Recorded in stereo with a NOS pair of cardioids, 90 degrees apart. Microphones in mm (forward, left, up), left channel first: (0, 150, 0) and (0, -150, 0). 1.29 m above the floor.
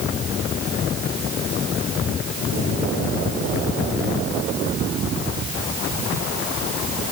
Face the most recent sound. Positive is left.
No sound to turn to.